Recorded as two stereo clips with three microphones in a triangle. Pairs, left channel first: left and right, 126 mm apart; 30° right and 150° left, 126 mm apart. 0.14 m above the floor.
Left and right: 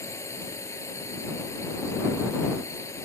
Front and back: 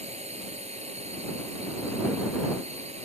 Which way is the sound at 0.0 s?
155° left.